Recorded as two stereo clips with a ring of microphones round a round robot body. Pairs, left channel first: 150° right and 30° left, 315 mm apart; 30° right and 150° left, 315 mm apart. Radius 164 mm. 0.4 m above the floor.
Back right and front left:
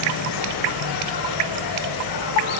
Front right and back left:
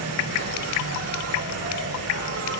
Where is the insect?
165° right, 6.5 m.